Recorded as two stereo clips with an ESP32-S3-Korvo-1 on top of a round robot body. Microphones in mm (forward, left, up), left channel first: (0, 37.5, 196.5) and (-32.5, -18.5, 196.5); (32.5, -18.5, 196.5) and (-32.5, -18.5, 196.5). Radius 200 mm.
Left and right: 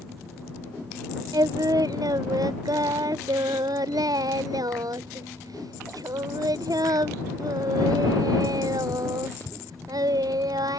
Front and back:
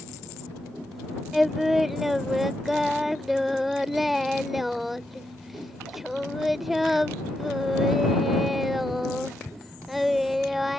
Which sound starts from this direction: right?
Singing, at 1.3 s.